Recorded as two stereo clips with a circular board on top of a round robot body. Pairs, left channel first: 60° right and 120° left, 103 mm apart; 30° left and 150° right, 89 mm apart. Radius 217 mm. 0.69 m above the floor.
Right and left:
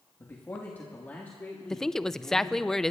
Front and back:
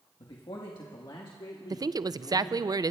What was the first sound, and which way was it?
A man speaking, 5° left.